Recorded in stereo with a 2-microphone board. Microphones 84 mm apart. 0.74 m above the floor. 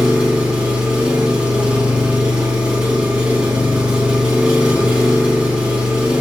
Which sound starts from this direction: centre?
An engine running, at 0.0 s.